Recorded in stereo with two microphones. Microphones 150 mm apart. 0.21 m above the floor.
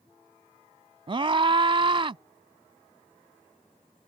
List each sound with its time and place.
1.1 s a scream: 40° right (ahead or behind)